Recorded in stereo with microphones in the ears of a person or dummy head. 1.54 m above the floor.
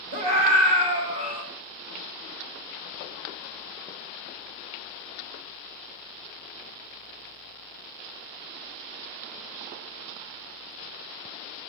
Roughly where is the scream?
Right.